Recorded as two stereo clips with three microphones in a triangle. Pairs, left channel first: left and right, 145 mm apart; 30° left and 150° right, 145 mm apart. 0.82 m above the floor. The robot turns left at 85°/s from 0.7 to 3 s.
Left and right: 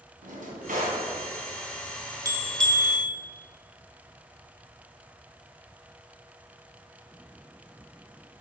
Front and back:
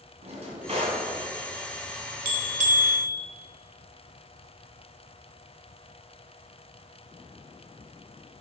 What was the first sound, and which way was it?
A drawer, 105° right.